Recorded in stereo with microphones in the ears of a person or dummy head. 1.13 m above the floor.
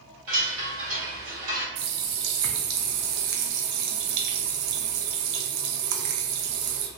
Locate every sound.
0.3 s a chime: 50° right (ahead or behind), 1.7 m
1.8 s a running tap: 70° right (ahead or behind), 0.5 m